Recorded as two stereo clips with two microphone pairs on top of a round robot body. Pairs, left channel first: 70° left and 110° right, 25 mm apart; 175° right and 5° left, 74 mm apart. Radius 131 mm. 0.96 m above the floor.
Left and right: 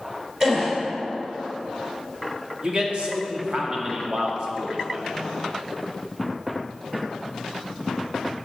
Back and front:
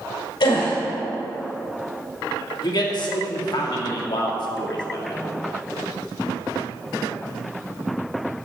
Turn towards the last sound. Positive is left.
turn(degrees=-155)